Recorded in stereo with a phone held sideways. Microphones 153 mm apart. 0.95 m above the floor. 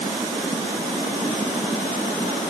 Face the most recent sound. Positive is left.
No sound to turn to.